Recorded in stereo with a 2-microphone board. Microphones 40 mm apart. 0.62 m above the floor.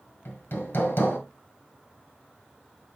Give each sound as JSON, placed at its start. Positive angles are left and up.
{"t": 0.2, "sound": "hammering", "side_deg": 75, "distance_m": 1.6}